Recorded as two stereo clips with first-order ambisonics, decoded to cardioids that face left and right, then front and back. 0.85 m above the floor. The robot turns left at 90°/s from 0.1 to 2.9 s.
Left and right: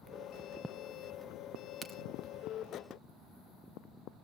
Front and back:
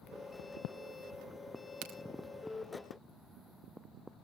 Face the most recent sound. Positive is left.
turn(degrees=75)